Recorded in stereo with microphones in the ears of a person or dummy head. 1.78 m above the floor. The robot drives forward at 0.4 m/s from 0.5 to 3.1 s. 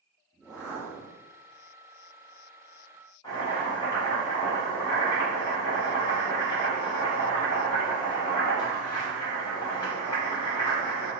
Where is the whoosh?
5° right (ahead or behind), 0.6 m; by 1.2 s centre (ahead or behind), 0.9 m.